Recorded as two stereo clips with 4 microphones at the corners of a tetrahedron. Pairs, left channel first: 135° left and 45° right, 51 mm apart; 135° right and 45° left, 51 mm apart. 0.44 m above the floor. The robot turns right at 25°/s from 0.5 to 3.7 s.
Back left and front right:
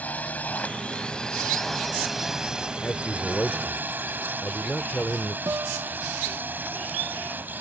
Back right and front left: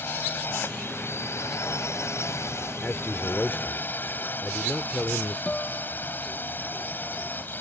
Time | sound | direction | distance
0.0 | a drone | 170° right | ?
2.8 | a man speaking | 175° left | ?
5.5 | a guitar | 65° right | ?